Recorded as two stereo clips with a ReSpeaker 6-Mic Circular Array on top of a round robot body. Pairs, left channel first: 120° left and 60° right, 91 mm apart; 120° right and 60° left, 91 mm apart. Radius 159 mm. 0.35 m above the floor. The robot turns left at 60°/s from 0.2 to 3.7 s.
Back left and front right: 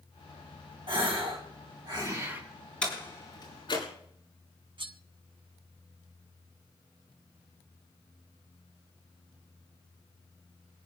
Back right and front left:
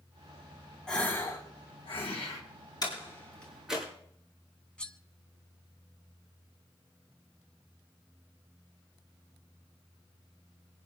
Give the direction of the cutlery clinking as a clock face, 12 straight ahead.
1 o'clock.